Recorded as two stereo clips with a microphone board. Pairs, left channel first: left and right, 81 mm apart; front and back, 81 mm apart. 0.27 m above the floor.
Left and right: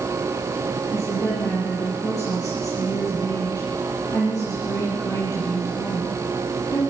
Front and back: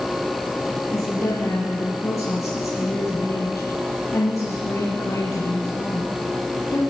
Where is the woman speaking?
50° left, 7.5 m.